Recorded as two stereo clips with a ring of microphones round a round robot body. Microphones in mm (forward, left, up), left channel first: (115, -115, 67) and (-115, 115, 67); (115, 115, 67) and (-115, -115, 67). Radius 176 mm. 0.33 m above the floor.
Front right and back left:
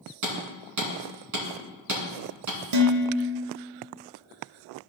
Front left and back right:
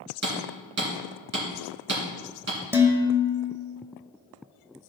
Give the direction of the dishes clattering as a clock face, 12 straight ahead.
7 o'clock.